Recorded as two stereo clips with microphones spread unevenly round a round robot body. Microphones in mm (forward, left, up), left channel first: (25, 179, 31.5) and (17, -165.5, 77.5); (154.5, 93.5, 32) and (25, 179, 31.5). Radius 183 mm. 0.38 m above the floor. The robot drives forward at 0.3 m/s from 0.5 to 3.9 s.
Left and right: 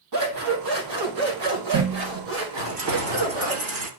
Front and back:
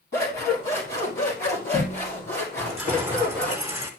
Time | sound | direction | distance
0.1 | scissors | 75° right | 4.5 m
2.6 | keys jangling | 125° right | 2.5 m